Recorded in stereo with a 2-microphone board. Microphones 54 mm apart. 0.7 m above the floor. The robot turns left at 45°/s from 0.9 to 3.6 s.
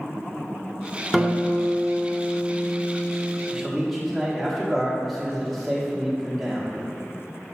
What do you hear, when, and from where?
1.1 s a guitar: 5° right, 0.8 m; by 3.4 s 105° right, 0.8 m
3.5 s a man speaking: 5° right (ahead or behind), 1.4 m; by 6.7 s centre (ahead or behind), 1.4 m